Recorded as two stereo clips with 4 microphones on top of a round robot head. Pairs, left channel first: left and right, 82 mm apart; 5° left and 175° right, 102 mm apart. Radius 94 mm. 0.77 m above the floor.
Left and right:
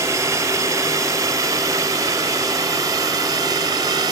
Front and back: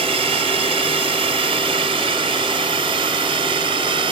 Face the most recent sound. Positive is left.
turn(degrees=-135)